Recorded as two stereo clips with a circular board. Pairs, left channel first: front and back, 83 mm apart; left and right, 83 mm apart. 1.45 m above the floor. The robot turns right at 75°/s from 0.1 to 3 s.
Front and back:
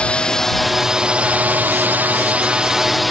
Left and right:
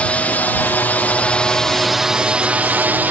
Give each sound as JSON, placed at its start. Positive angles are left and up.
{"t": 0.0, "sound": "a drone", "azimuth_deg": 50}